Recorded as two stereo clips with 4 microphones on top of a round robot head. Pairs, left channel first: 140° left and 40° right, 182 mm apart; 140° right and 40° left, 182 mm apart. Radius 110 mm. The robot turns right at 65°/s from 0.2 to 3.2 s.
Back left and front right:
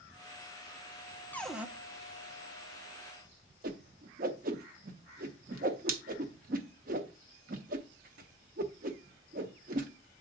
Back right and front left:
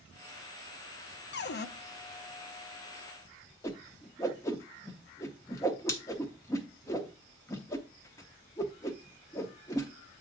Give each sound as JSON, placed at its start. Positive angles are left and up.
{"t": 1.3, "sound": "a cupboard door", "azimuth_deg": -145, "distance_m": 0.7}
{"t": 3.6, "sound": "a whoosh", "azimuth_deg": -65, "distance_m": 0.6}